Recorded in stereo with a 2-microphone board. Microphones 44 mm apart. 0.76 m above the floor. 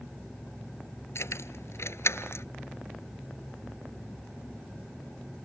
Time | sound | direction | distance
1.1 | keys jangling | 85° left | ?